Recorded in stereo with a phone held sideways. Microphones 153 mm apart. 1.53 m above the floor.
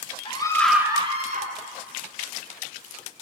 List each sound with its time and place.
0.2 s a scream: 35° left (ahead or behind), 1.1 m; by 1.5 s 60° right (ahead or behind), 1.4 m